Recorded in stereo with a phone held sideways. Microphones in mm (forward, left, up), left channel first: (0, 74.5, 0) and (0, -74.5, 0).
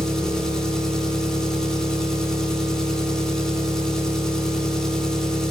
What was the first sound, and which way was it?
An engine running, 5° left (ahead or behind).